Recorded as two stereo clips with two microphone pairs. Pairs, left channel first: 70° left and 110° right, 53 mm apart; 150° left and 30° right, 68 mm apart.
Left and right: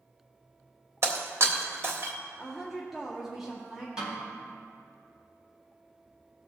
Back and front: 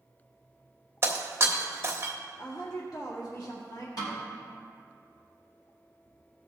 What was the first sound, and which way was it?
Breaking glass, 80° right.